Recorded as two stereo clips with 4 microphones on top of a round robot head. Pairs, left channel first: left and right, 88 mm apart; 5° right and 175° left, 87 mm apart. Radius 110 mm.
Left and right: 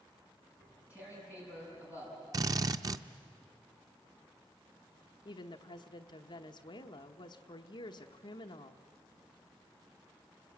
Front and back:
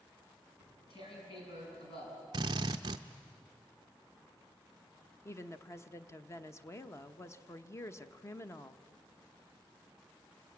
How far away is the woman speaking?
About 1.0 m.